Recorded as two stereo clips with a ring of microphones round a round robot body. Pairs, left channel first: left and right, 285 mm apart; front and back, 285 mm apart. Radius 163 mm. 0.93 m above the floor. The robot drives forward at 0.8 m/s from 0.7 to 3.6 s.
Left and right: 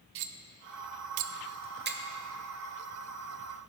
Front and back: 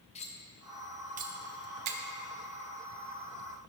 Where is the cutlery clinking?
70° right, 0.5 m; by 2.0 s 150° right, 1.0 m.